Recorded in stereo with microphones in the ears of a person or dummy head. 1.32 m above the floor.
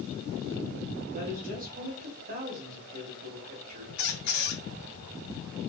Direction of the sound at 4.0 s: 55° left (ahead or behind).